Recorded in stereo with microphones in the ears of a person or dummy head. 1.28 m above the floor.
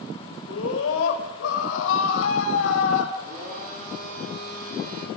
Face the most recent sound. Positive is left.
turn(degrees=-50)  # may be behind; listen again after turning